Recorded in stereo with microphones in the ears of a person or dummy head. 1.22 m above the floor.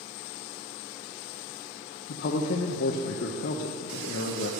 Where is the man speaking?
55° left (ahead or behind), 0.6 m.